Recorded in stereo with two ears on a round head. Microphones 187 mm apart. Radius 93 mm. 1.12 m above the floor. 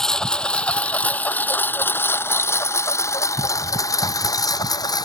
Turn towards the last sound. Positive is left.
turn(degrees=20)  # may be behind; listen again after turning